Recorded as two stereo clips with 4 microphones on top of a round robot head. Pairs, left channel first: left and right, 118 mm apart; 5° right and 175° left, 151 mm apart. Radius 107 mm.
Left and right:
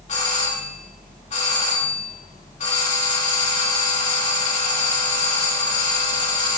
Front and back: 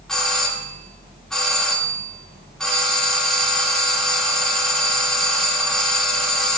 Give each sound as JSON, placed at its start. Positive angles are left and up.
{"t": 0.1, "sound": "a doorbell", "azimuth_deg": 85, "distance_m": 2.5}